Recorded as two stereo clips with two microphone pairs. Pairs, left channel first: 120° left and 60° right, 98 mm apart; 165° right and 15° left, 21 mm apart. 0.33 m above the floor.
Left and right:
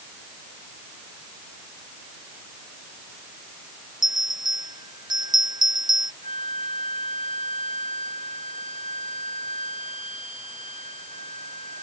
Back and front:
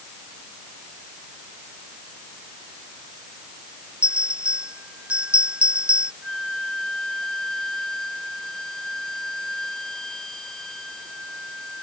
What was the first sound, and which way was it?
A bell, 15° right.